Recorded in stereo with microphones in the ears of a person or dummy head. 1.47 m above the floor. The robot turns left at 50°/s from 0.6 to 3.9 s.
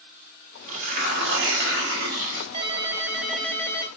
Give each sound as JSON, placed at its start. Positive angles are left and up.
{"t": 0.7, "sound": "tearing paper", "azimuth_deg": -45, "distance_m": 2.0}
{"t": 2.5, "sound": "a ringtone", "azimuth_deg": -140, "distance_m": 0.6}